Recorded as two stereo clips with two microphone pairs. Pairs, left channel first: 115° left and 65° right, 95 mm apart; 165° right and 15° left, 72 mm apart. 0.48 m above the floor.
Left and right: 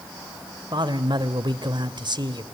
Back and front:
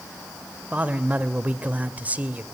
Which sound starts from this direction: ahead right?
A man speaking, at 0.7 s.